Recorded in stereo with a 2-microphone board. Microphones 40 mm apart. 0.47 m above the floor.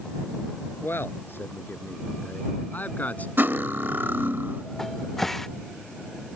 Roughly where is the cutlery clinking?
Right.